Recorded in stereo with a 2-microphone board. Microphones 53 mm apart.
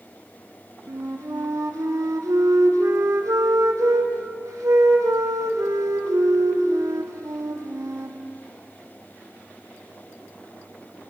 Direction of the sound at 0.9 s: 75° right (ahead or behind).